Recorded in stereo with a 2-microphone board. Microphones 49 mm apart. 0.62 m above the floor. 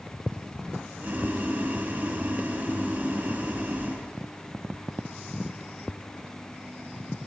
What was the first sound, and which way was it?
Boiling, 30° right (ahead or behind).